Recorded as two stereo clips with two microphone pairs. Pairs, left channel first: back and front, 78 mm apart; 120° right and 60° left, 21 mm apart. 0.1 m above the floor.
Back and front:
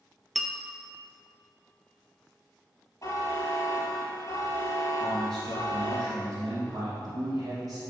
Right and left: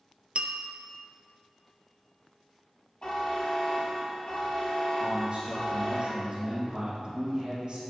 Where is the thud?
No thud in this recording.